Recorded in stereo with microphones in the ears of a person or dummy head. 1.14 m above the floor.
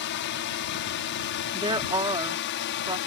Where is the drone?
55° left (ahead or behind).